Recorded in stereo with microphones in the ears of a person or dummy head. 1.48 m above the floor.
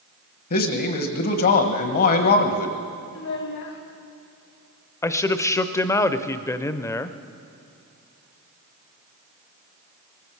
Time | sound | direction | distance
0.5 | a man speaking | 50° left (ahead or behind) | 1.2 m
3.1 | a child speaking | 60° left (ahead or behind) | 1.9 m
5.0 | a man speaking | 15° left (ahead or behind) | 0.6 m